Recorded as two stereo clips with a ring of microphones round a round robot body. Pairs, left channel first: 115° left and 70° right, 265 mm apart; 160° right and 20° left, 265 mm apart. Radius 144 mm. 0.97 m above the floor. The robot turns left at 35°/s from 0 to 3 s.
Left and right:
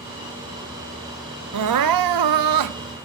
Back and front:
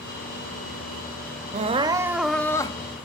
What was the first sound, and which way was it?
Crying, 40° right.